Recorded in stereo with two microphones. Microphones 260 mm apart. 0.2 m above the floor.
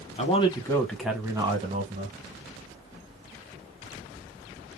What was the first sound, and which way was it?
A man speaking, 25° left (ahead or behind).